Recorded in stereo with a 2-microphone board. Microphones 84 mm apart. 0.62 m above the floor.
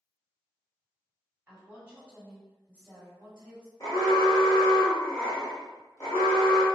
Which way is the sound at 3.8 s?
40° left (ahead or behind).